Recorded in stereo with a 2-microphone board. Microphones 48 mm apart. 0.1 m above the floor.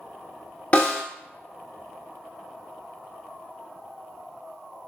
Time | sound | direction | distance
0.7 | a snare drum | 30° left (ahead or behind) | 0.7 m